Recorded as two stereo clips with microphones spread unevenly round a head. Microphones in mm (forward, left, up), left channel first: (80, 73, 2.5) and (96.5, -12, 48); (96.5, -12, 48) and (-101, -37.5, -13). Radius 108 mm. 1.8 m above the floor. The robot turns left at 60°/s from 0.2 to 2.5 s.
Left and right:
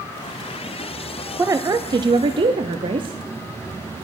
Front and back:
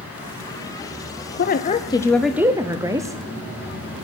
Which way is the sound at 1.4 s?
25° right.